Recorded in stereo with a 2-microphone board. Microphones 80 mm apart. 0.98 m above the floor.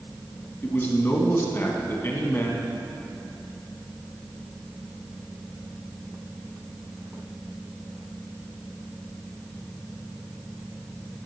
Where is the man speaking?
30° left (ahead or behind), 1.2 m.